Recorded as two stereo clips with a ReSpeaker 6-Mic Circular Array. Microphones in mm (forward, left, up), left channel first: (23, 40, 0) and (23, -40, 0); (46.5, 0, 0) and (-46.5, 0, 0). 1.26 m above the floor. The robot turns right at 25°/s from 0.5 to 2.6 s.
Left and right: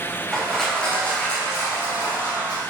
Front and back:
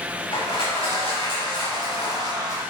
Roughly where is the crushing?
Ahead.